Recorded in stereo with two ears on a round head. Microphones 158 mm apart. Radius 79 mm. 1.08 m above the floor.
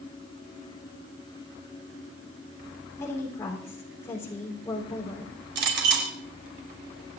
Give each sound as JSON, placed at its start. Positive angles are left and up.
{"t": 3.0, "sound": "a woman speaking", "side_deg": 15, "distance_m": 3.5}
{"t": 5.5, "sound": "a clink", "side_deg": -70, "distance_m": 3.0}